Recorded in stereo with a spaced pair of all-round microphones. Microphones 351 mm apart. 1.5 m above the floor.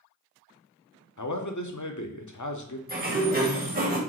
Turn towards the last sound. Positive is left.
turn(degrees=-25)  # may be behind; listen again after turning